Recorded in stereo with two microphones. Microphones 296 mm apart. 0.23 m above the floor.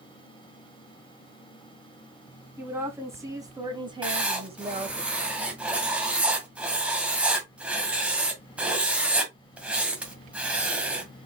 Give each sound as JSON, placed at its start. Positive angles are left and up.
{"t": 2.6, "sound": "a woman speaking", "side_deg": -5, "distance_m": 1.8}
{"t": 4.0, "sound": "writing", "side_deg": -5, "distance_m": 1.5}